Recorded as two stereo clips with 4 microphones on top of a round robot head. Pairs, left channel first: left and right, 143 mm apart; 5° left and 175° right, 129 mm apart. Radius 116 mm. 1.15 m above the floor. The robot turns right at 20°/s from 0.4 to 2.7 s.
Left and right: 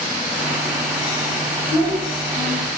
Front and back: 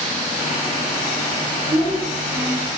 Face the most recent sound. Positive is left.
turn(degrees=160)